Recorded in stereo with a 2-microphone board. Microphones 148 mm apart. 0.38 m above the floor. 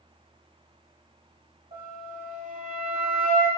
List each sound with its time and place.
1.7 s a flute: 70° right (ahead or behind), 1.0 m